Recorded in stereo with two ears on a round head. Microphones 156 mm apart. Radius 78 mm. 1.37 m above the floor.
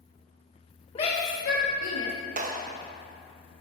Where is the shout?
30° left (ahead or behind), 1.3 m; by 2.1 s 85° left, 1.4 m.